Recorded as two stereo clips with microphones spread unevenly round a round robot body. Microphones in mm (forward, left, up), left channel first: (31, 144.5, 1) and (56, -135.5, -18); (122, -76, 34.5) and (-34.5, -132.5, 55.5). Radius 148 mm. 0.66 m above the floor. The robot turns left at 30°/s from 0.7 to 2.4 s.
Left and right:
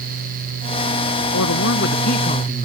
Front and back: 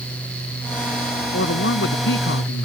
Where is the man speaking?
60° left; by 2.6 s 30° left.